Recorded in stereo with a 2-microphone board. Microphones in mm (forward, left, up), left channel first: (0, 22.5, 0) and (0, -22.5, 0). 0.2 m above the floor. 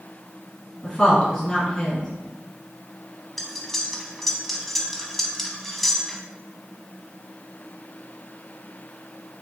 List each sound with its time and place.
0.8 s a woman speaking: 15° left (ahead or behind), 1.9 m
3.4 s cutlery clinking: 5° left (ahead or behind), 0.8 m